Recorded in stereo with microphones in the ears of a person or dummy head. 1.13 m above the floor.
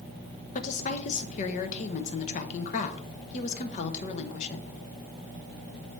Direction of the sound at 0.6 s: 40° left (ahead or behind).